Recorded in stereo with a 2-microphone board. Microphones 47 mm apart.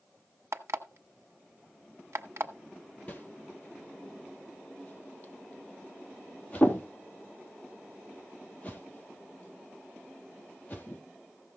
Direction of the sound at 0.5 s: 60° right (ahead or behind).